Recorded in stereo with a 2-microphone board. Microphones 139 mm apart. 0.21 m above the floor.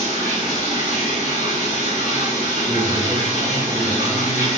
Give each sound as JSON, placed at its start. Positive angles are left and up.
{"t": 0.0, "sound": "running water", "side_deg": 70, "distance_m": 1.4}
{"t": 2.7, "sound": "a man speaking", "side_deg": -20, "distance_m": 1.2}